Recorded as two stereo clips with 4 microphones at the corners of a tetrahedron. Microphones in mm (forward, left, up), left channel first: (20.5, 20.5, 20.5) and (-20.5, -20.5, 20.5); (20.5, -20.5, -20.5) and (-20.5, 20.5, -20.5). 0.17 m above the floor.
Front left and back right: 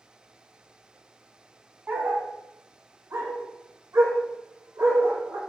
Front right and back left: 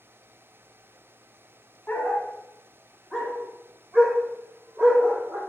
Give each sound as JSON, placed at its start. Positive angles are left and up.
{"t": 1.9, "sound": "a dog barking", "azimuth_deg": -90, "distance_m": 0.8}